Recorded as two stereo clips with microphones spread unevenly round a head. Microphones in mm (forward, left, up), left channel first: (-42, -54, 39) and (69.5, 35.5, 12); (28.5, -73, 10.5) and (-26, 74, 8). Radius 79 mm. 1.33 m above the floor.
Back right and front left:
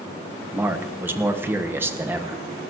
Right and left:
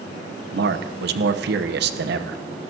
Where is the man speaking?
110° left, 1.1 m.